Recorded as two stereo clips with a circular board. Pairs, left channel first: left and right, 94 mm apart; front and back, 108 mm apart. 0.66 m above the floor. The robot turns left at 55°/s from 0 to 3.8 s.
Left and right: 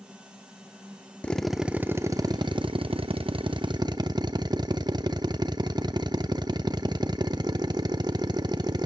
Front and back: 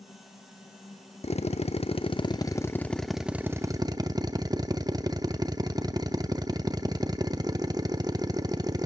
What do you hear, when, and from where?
1.2 s a drill: 15° left, 0.7 m; by 8.9 s 130° right, 0.7 m